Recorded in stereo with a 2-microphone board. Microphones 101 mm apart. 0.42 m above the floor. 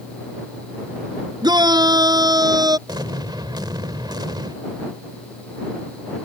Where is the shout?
45° right (ahead or behind); by 2.8 s 40° right (ahead or behind).